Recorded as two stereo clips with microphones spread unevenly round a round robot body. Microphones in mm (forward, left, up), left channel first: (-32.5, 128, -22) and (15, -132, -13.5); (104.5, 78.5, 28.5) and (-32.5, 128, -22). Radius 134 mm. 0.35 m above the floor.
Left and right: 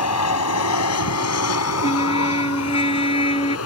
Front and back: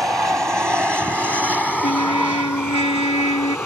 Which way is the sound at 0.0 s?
80° left.